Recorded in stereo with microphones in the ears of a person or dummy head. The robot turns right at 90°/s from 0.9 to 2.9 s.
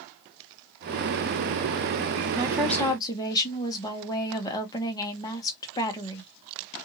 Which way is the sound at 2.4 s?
30° right.